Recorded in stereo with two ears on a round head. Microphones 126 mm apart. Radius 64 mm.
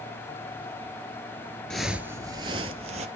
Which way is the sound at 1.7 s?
5° left (ahead or behind).